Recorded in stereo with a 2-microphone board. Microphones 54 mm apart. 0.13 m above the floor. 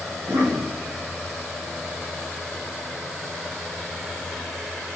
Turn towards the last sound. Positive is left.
turn(degrees=-75)  # may be behind; listen again after turning